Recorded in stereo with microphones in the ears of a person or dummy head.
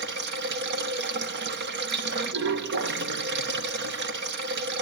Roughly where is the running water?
Right.